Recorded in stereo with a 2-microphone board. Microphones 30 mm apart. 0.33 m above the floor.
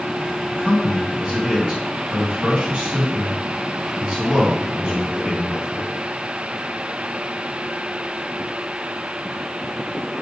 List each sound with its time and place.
0.5 s a man speaking: 30° right (ahead or behind), 3 m